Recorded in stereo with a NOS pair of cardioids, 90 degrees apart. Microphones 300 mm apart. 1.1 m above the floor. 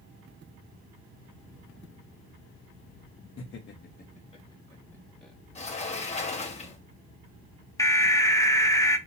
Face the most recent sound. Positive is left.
turn(degrees=10)